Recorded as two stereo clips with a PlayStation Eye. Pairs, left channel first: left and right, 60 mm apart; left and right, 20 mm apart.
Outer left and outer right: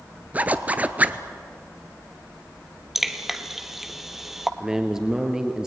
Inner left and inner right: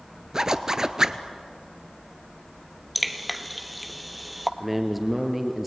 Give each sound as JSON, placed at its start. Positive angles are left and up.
{"t": 0.3, "sound": "a zipper", "side_deg": -25, "distance_m": 0.9}
{"t": 3.0, "sound": "dripping", "side_deg": -5, "distance_m": 1.2}
{"t": 4.6, "sound": "a man speaking", "side_deg": -10, "distance_m": 2.5}